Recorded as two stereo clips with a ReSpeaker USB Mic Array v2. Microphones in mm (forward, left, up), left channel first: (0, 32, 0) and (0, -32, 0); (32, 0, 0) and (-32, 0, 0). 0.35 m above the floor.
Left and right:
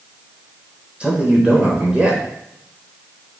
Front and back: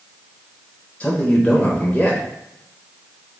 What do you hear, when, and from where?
1.0 s a man speaking: 40° right, 1.0 m